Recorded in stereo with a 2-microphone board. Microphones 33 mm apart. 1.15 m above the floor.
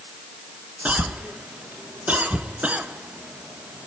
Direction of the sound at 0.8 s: 50° right (ahead or behind).